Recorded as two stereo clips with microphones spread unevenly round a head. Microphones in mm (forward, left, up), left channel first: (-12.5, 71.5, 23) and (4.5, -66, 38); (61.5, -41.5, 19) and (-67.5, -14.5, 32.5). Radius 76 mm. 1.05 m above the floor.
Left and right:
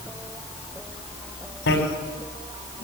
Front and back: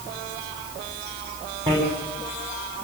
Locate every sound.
1.7 s a bicycle bell: 105° left, 5 m